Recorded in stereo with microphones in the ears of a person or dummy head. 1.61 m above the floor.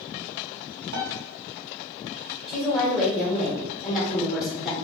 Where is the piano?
60° right (ahead or behind), 0.8 m.